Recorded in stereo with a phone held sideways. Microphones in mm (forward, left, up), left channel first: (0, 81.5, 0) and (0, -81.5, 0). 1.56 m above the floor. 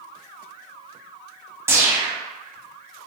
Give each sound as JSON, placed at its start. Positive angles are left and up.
{"t": 1.7, "sound": "a whoosh", "side_deg": -15, "distance_m": 0.6}